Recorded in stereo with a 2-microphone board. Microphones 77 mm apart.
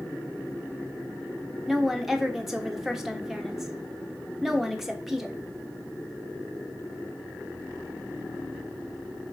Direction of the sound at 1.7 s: 5° right (ahead or behind).